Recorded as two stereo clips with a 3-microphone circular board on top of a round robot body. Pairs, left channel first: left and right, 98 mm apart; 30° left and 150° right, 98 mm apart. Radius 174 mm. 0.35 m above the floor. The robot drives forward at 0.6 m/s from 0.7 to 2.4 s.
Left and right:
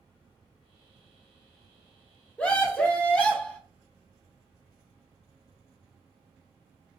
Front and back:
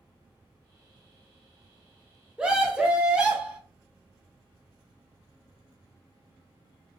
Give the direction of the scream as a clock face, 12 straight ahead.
7 o'clock.